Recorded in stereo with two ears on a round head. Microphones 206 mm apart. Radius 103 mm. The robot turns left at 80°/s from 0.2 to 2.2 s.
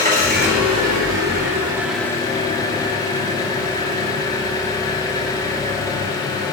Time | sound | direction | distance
0.0 | an engine running | 40° right | 2 m